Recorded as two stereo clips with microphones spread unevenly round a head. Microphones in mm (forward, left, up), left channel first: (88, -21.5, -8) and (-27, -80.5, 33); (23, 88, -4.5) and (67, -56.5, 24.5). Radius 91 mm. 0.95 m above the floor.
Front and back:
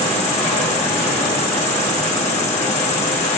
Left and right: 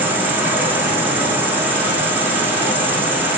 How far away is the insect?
About 2.5 m.